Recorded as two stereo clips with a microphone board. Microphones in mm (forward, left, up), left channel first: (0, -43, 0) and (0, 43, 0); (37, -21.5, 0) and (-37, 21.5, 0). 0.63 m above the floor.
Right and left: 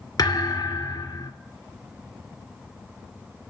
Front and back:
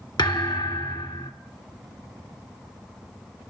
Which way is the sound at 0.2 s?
50° right.